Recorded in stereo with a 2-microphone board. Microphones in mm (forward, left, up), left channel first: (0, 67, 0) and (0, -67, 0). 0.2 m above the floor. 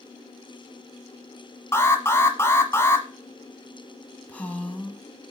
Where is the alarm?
20° left (ahead or behind), 1.2 m.